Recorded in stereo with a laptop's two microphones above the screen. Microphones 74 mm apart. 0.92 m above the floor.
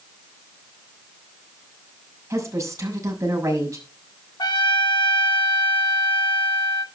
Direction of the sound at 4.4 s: 85° left.